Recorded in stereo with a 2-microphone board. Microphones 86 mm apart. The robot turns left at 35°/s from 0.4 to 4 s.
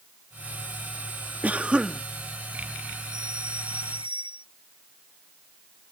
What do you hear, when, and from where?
1.4 s a cough: 20° right (ahead or behind); by 2.0 s 10° right (ahead or behind)
3.1 s a doorbell: 60° right; by 4.5 s 90° right